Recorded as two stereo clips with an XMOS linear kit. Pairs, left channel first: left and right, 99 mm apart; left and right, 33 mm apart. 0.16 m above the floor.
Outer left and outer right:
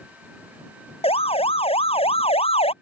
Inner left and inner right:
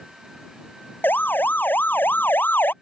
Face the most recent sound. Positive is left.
turn(degrees=75)  # may be behind; listen again after turning